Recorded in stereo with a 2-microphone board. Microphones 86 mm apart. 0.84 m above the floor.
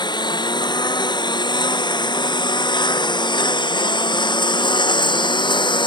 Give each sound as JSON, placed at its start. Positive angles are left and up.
{"t": 0.0, "sound": "a lawn mower", "side_deg": 55}